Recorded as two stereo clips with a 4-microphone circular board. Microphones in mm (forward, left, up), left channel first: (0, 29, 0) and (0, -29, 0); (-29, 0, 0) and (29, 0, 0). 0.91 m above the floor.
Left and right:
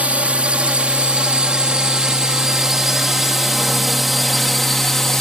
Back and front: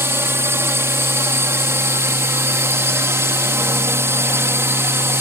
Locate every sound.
0.0 s a drone: 30° right; by 5.2 s 10° left